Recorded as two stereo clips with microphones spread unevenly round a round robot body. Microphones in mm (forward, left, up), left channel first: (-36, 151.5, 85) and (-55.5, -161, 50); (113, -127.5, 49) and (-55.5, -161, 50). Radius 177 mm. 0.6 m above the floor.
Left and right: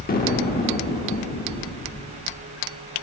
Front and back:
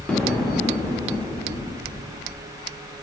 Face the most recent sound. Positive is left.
turn(degrees=85)